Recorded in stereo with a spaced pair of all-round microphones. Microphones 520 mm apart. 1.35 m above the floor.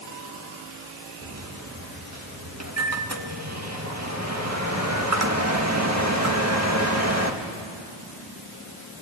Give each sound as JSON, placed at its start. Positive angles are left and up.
{"t": 1.2, "sound": "a microwave", "side_deg": -30, "distance_m": 1.7}